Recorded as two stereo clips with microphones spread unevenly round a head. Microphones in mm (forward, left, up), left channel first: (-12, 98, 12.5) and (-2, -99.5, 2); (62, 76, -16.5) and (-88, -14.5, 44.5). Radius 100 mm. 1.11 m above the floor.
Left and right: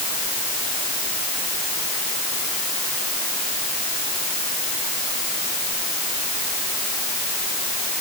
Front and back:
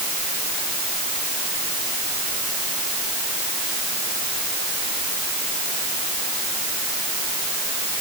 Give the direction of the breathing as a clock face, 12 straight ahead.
I don't hear breathing.